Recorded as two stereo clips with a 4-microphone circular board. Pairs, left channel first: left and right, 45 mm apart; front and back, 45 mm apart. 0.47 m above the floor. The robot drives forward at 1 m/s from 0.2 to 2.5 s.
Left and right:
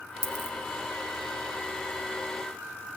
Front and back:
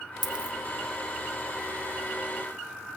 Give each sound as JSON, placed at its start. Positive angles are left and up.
{"t": 0.2, "sound": "a dropped coin", "azimuth_deg": -95, "distance_m": 0.5}